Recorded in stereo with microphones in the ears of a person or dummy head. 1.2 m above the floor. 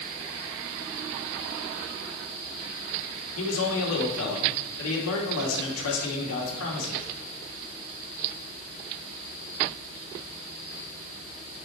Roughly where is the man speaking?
Left.